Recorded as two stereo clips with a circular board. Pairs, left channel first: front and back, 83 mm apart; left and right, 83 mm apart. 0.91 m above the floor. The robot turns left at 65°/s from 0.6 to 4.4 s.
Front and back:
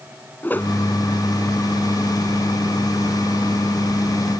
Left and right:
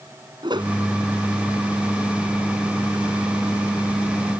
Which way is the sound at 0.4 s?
65° right.